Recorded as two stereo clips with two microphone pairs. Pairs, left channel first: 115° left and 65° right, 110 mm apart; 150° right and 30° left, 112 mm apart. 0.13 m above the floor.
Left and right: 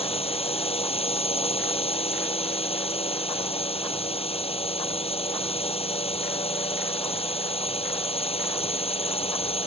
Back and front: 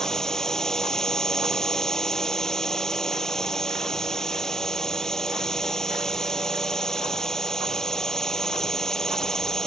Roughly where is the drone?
Behind left.